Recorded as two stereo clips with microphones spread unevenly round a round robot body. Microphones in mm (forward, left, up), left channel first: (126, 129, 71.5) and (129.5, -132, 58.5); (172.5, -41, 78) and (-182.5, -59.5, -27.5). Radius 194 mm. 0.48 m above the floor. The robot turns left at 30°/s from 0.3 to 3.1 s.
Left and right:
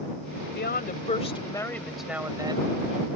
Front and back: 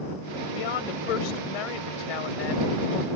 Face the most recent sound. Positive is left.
turn(degrees=-35)